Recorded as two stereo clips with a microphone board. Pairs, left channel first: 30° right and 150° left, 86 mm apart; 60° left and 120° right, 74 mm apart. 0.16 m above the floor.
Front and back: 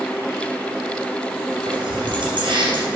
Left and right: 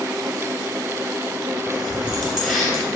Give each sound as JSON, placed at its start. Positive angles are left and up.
{"t": 1.7, "sound": "keys jangling", "azimuth_deg": 150, "distance_m": 3.0}